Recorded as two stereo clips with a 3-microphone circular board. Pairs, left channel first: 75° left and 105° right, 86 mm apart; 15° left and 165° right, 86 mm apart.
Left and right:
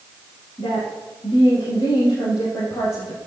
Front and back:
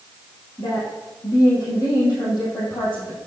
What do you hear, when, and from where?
0.6 s a woman speaking: 60° left, 4 m